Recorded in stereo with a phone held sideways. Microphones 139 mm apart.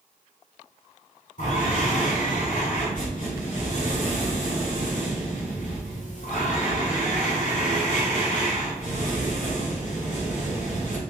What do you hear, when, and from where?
1.4 s breathing: 70° left (ahead or behind), 1.7 m